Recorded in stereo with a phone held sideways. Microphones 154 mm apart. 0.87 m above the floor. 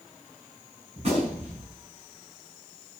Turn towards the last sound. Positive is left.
turn(degrees=-45)  # may be behind; listen again after turning